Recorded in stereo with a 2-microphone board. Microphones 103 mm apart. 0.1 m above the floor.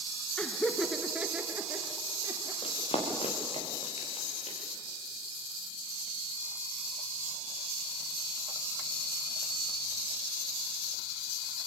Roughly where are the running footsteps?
Left.